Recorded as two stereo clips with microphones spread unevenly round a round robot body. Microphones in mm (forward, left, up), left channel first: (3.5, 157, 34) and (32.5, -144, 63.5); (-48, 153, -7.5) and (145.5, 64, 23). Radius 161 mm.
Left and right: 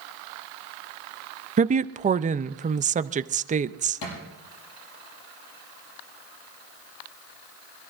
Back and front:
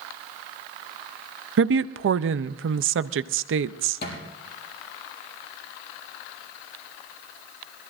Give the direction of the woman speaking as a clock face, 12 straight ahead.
1 o'clock.